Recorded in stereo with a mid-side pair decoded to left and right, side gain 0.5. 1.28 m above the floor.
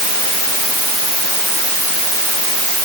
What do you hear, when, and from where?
Only background noise.